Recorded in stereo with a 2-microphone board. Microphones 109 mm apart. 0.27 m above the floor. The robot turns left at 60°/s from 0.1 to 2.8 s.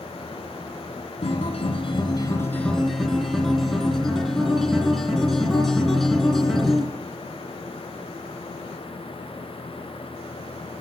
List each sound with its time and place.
1.2 s a guitar: 100° left, 3 m; by 6.9 s 5° left, 3 m